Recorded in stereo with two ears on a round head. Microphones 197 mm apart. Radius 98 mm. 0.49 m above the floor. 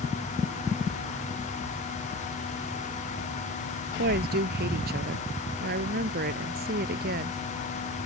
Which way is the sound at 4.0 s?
45° right (ahead or behind).